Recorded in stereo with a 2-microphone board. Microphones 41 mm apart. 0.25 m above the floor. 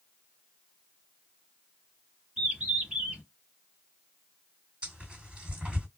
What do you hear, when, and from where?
2.4 s a bird: 15° right (ahead or behind), 1.9 m
4.8 s tearing paper: 25° right (ahead or behind), 2 m